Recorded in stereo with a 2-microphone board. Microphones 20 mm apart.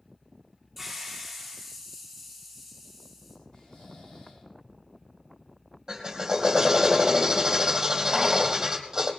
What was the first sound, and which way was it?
A hiss, 5° left (ahead or behind).